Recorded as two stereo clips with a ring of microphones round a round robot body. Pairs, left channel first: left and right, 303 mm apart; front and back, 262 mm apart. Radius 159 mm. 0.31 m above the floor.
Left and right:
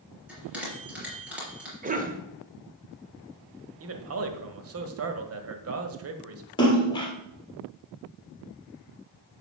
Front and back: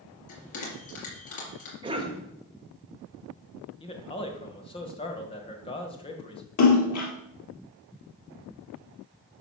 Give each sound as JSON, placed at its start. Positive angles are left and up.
{"t": 0.3, "sound": "a bell", "azimuth_deg": -5, "distance_m": 4.0}
{"t": 1.8, "sound": "a cough", "azimuth_deg": -125, "distance_m": 1.7}
{"t": 3.8, "sound": "a man speaking", "azimuth_deg": -65, "distance_m": 1.5}
{"t": 6.6, "sound": "a splash", "azimuth_deg": 15, "distance_m": 3.0}